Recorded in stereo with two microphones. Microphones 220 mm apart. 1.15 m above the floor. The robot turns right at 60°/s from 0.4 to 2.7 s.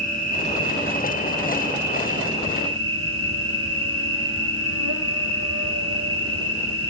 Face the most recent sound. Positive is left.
turn(degrees=-80)